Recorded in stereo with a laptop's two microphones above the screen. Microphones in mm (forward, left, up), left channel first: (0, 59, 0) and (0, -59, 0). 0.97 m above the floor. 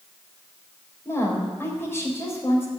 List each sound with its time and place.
1.1 s a woman speaking: 20° left (ahead or behind), 4 m